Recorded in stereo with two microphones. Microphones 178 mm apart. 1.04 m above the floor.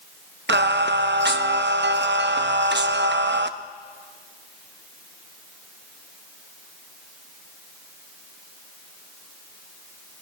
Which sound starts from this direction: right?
Singing, at 0.5 s.